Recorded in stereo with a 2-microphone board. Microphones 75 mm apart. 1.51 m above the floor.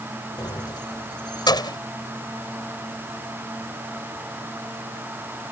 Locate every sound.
0.4 s keys jangling: 75° left (ahead or behind)